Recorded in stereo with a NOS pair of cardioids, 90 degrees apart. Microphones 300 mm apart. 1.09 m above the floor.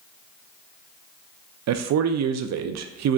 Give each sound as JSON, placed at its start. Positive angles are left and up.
{"t": 1.7, "sound": "a man speaking", "azimuth_deg": -60, "distance_m": 0.6}